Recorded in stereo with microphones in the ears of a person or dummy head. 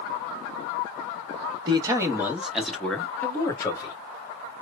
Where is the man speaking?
25° right (ahead or behind), 1.1 m; by 4.0 s 20° left (ahead or behind), 1.6 m.